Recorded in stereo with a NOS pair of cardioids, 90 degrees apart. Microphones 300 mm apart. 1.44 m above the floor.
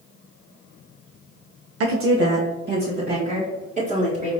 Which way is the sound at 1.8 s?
55° right.